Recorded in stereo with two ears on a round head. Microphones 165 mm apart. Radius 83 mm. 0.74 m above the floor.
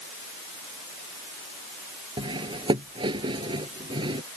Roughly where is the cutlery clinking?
Right.